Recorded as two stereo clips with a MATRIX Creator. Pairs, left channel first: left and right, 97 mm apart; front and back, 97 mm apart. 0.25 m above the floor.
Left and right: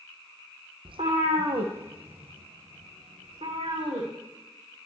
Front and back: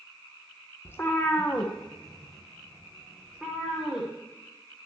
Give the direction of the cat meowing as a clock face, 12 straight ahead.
2 o'clock.